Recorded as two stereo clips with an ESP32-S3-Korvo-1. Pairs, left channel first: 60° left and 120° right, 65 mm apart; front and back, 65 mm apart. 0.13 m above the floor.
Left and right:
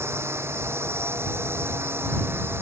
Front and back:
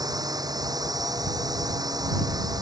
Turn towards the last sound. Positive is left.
turn(degrees=-175)